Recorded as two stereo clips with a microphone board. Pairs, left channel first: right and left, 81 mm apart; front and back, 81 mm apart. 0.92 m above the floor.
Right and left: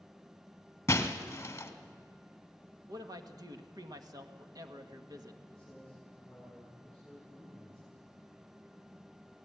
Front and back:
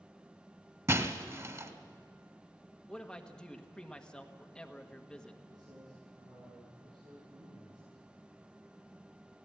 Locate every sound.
0.9 s breaking glass: 140° right, 1.4 m
2.9 s a man speaking: 75° left, 1.4 m
5.5 s a man speaking: 170° right, 9 m